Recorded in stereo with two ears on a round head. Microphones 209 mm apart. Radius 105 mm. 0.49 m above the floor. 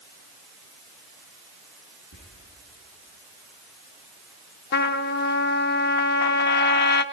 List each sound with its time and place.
2.1 s whispering: 55° left (ahead or behind), 8 m
4.7 s a trumpet: 45° left (ahead or behind), 0.6 m